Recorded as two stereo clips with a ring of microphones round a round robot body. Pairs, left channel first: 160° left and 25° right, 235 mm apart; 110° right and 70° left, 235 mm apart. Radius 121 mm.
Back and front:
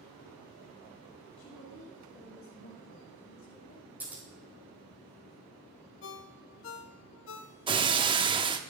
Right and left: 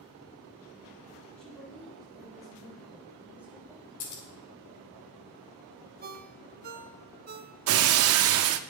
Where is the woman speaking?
160° left, 6.5 m; by 3.9 s 145° left, 3.5 m.